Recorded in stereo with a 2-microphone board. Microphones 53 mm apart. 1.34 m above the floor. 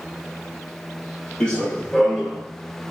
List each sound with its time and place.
1.4 s running footsteps: 20° left (ahead or behind), 1.4 m; by 2.4 s 5° left (ahead or behind), 1.4 m